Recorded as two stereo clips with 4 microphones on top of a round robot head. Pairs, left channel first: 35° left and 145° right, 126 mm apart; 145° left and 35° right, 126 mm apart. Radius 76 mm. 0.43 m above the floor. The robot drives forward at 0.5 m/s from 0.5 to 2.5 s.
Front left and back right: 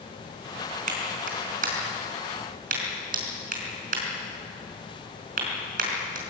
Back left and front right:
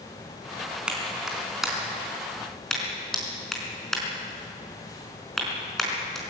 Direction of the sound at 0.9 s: 120° right.